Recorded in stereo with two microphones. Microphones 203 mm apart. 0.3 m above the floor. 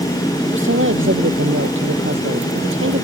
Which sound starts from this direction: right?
A woman speaking, at 0.5 s.